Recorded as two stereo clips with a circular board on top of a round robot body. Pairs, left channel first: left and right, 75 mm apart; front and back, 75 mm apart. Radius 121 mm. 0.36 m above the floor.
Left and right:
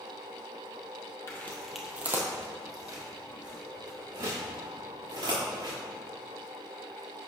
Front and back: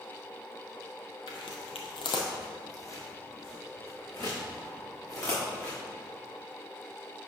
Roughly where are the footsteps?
Ahead left.